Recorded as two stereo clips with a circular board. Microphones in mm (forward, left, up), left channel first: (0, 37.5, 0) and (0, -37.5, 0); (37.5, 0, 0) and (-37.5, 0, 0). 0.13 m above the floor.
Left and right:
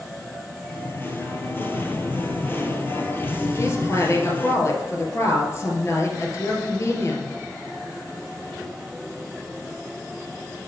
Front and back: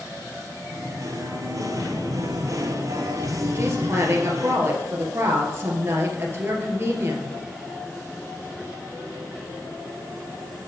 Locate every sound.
0.6 s singing: 145° left, 1.1 m
3.5 s a woman speaking: 130° left, 2 m